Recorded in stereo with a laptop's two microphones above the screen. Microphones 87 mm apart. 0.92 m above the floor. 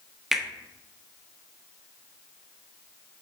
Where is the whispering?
I don't hear whispering.